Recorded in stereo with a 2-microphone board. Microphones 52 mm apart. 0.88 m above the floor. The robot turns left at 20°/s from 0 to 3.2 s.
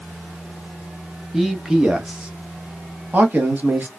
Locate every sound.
1.3 s a man speaking: 5° right (ahead or behind), 0.9 m; by 3.9 s 35° right (ahead or behind), 0.9 m